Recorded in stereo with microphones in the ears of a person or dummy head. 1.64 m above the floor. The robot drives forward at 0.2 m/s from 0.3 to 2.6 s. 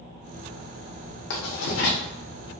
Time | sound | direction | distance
1.3 | writing | 55° left (ahead or behind) | 0.8 m